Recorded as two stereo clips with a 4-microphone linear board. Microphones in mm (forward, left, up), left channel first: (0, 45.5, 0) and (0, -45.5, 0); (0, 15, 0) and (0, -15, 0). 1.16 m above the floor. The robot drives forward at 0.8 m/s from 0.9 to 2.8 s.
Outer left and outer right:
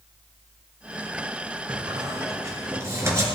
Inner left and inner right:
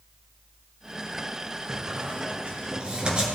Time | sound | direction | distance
1.7 | a squeak | 45° right (ahead or behind) | 1.9 m